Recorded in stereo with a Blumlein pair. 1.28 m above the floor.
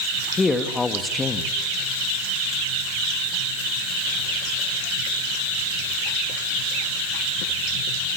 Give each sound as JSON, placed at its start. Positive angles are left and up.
{"t": 0.4, "sound": "a man speaking", "azimuth_deg": 10, "distance_m": 2.0}